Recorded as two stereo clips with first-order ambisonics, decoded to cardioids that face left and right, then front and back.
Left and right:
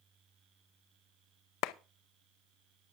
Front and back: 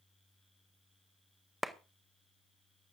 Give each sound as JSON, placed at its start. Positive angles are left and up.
{"t": 1.6, "sound": "a clap", "azimuth_deg": 90, "distance_m": 0.6}